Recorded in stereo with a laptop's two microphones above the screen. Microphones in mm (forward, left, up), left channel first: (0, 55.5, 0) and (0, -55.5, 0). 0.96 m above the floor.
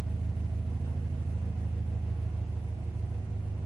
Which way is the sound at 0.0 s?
40° right (ahead or behind).